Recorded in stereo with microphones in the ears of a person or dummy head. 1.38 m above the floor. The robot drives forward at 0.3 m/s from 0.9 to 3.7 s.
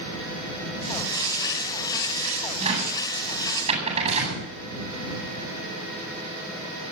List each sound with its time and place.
2.6 s a cupboard door: 35° right (ahead or behind), 7.5 m